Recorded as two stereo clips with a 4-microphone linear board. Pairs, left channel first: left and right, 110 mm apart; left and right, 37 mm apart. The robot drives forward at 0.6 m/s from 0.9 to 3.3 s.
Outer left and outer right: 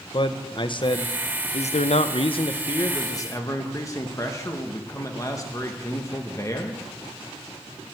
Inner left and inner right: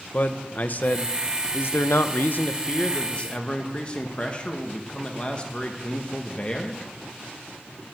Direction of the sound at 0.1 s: 50° left (ahead or behind).